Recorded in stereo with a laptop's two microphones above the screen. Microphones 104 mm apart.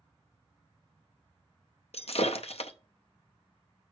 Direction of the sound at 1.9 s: 70° left (ahead or behind).